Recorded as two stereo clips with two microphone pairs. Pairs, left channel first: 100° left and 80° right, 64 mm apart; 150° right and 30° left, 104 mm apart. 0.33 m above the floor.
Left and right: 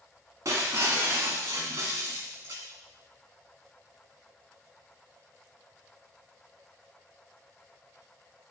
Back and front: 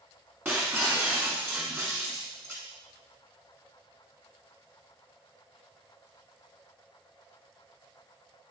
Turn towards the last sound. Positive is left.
turn(degrees=-40)